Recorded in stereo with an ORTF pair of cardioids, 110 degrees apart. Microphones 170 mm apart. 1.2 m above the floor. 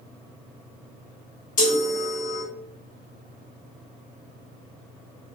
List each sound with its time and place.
1.6 s a chime: 50° left, 1.3 m